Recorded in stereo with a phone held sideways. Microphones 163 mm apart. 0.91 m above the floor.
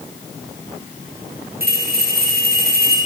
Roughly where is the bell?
Right.